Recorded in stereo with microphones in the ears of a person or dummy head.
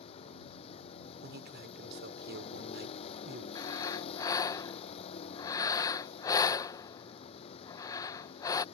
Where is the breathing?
20° left (ahead or behind).